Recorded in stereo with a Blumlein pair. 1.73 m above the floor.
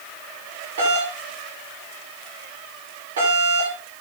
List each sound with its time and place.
0.8 s a doorbell: 60° right, 9 m